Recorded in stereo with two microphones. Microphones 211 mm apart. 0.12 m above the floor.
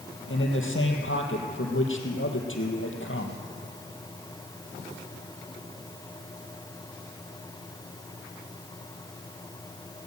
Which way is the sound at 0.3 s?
70° left (ahead or behind).